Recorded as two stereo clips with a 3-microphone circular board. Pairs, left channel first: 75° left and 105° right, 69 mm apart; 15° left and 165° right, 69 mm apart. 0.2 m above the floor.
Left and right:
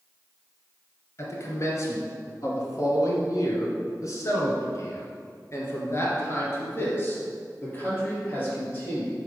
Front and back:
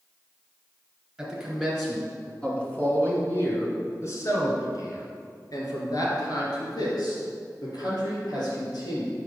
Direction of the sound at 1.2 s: 110° left.